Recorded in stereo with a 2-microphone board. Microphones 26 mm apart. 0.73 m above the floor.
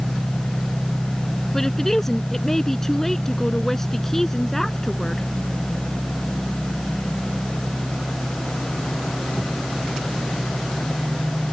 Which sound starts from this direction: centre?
A woman speaking, at 1.5 s.